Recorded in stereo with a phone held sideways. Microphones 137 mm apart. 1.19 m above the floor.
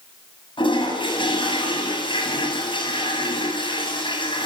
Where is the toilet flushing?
35° left (ahead or behind), 8.5 m.